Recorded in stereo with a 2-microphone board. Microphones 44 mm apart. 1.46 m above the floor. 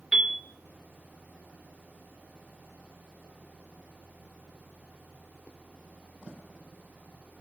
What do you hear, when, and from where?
0.1 s a piano: 15° right (ahead or behind), 0.5 m